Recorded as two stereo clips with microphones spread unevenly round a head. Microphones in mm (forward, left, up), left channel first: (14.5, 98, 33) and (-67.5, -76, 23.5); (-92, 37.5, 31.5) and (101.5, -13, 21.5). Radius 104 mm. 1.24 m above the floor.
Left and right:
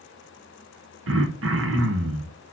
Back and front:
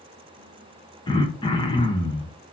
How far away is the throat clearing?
About 1.3 m.